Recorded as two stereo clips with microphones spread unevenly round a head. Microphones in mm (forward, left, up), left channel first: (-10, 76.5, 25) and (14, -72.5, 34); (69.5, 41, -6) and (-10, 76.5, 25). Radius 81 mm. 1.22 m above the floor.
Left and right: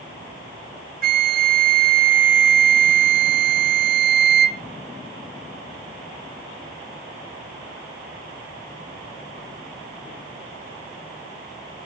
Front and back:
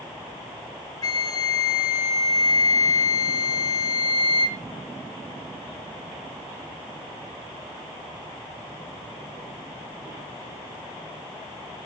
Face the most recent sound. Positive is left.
turn(degrees=-60)